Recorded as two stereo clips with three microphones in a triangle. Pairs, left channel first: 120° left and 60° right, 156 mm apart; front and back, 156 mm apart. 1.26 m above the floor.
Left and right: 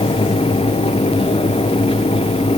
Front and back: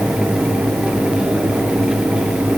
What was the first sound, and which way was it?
Only background noise.